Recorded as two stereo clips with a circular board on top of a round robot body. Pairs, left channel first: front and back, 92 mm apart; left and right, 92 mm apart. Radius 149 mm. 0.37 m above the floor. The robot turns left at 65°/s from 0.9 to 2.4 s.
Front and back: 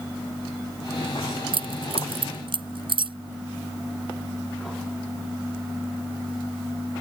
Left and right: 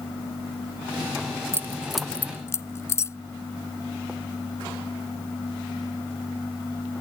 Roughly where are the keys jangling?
Behind right.